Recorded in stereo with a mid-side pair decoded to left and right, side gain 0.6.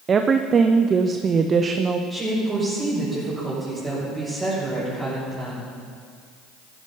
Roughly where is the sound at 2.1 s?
Ahead.